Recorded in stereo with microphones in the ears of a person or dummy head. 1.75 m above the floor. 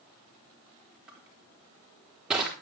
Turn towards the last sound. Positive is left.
turn(degrees=-5)  # may be behind; listen again after turning